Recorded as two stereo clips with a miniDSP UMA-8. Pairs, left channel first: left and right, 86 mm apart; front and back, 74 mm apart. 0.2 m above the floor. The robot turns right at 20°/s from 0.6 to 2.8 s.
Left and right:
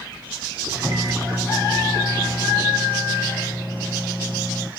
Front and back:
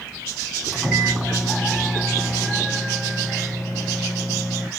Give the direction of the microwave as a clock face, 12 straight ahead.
3 o'clock.